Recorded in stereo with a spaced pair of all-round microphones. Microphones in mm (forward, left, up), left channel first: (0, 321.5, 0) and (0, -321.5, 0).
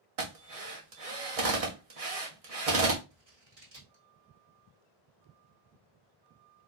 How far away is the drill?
About 1.2 m.